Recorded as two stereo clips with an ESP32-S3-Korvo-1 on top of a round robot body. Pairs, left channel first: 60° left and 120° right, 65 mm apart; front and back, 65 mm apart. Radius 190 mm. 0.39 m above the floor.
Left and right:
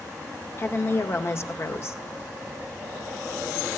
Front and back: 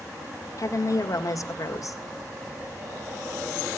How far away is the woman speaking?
About 2 m.